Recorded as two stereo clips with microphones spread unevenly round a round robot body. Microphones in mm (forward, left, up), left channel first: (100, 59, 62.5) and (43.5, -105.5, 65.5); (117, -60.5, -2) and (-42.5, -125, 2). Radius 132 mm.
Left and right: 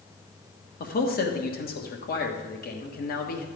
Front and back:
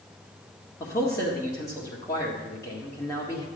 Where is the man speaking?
95° left, 1.5 m.